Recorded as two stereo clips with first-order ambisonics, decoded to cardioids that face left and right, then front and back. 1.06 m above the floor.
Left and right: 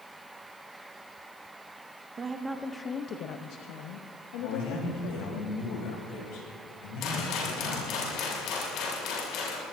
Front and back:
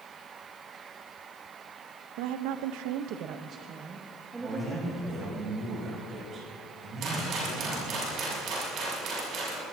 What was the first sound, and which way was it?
A woman speaking, 155° right.